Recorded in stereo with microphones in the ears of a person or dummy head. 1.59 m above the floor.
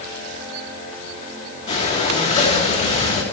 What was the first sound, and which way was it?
Breathing, 35° left (ahead or behind).